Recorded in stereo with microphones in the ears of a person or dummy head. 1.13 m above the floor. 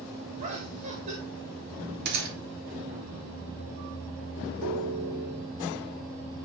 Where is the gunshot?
55° right (ahead or behind), 3 m.